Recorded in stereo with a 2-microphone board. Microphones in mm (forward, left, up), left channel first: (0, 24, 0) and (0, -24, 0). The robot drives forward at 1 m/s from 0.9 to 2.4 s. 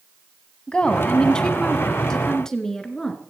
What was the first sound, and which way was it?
A woman speaking, 20° left (ahead or behind).